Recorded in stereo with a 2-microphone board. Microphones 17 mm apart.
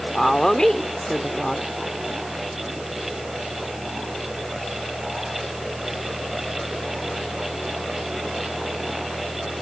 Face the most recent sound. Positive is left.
turn(degrees=45)  # may be behind; listen again after turning